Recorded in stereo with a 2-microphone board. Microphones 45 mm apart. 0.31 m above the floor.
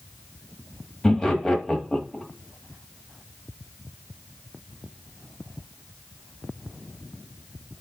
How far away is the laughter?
About 1.3 m.